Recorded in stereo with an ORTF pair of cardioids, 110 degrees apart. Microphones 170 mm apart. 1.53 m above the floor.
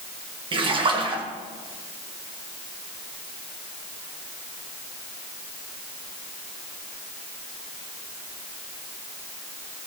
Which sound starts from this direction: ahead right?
A splash, at 0.5 s.